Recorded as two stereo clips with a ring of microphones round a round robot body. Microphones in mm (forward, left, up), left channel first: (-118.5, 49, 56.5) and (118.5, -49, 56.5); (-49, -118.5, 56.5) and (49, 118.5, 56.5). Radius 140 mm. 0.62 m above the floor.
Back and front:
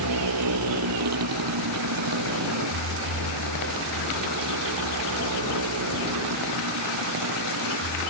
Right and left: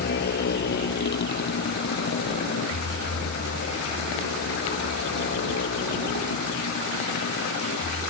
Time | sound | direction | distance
0.0 | a motorcycle | 55° right | ?